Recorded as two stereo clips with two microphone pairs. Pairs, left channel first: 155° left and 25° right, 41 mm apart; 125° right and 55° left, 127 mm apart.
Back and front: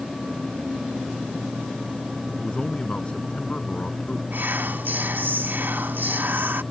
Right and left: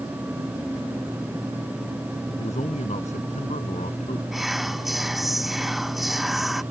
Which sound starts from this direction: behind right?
A man speaking, at 2.4 s.